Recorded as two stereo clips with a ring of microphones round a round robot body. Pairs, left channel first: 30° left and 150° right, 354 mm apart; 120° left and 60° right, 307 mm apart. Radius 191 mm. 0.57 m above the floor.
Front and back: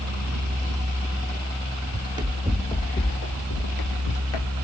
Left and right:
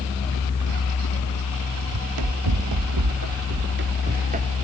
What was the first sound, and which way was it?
Running footsteps, 80° right.